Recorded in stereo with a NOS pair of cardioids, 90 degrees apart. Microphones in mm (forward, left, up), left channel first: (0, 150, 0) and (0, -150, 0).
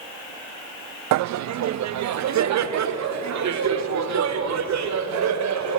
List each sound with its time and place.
1.1 s laughter: 70° right, 0.5 m; by 5.8 s 65° right, 4 m